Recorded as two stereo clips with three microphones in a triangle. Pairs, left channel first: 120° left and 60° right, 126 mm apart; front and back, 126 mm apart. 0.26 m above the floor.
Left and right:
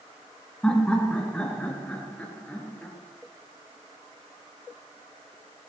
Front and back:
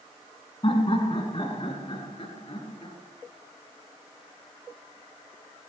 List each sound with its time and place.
0.6 s laughter: 40° left, 2.5 m